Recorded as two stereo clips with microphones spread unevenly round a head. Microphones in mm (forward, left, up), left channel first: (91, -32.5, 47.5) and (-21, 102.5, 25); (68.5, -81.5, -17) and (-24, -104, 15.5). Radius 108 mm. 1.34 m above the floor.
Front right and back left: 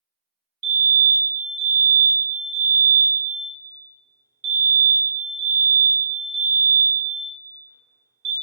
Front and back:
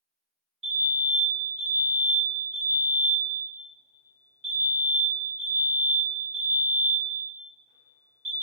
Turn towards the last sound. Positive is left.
turn(degrees=130)